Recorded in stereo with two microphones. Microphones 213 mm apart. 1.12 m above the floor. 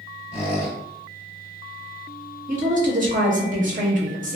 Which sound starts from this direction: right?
A woman speaking, at 2.5 s.